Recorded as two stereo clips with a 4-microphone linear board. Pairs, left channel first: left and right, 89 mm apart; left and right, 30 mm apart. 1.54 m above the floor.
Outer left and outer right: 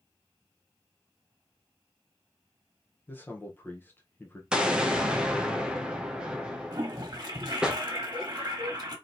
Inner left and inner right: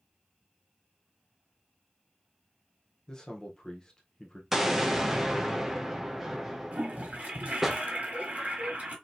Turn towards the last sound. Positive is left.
turn(degrees=-45)  # may be behind; listen again after turning